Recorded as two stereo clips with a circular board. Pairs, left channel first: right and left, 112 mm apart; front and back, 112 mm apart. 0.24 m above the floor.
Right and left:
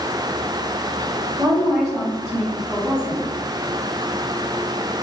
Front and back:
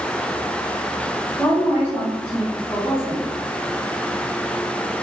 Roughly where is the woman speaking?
Ahead.